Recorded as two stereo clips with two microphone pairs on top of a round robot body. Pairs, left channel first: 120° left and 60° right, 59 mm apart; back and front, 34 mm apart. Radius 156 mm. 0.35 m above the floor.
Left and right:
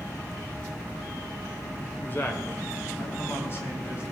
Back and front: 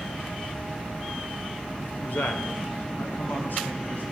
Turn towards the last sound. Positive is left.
turn(degrees=170)